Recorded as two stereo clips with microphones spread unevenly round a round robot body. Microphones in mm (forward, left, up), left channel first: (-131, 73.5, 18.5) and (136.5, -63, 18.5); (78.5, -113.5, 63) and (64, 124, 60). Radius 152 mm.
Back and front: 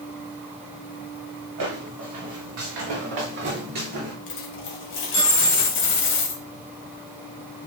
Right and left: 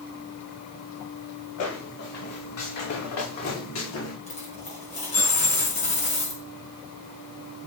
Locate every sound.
1.6 s footsteps: 70° right, 4.5 m; by 4.1 s 90° right, 3 m
4.3 s a dropped coin: 155° right, 1.5 m